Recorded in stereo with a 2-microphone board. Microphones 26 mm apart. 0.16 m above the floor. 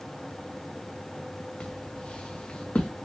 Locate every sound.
1.6 s footsteps: 50° left (ahead or behind), 2.0 m